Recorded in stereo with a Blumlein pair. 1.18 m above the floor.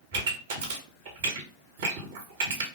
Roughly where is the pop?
Ahead right.